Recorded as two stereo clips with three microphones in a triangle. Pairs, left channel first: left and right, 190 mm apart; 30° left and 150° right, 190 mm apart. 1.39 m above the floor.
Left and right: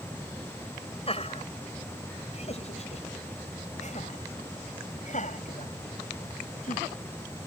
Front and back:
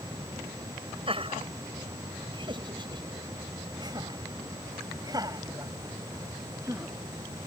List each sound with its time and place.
1.1 s laughter: 150° left; by 6.9 s 135° left